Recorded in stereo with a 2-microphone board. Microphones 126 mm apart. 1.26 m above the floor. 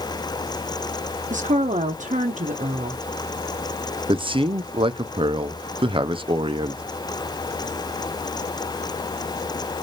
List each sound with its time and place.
1.3 s a woman speaking: 75° right (ahead or behind), 0.7 m
4.1 s a man speaking: 45° right (ahead or behind), 0.6 m